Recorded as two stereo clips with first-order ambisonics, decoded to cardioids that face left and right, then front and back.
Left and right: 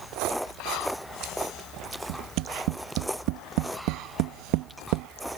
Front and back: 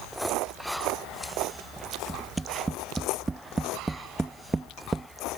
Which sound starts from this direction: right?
Tapping, at 2.1 s.